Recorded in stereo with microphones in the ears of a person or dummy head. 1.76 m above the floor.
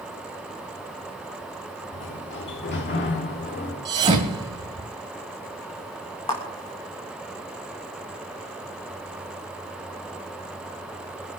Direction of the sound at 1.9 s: 55° left (ahead or behind).